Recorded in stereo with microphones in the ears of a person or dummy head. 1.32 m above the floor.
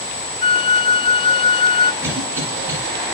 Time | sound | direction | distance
0.4 | a flute | 30° left (ahead or behind) | 0.5 m
2.0 | a cough | 10° right (ahead or behind) | 9.5 m